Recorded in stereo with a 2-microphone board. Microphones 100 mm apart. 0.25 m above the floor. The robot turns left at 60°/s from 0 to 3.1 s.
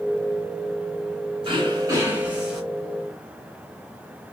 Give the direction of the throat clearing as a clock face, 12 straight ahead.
4 o'clock.